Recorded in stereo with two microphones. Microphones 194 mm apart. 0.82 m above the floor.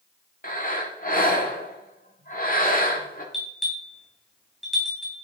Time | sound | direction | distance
0.4 | breathing | 45° left (ahead or behind) | 1.5 m
3.3 | a bell | centre (ahead or behind) | 3 m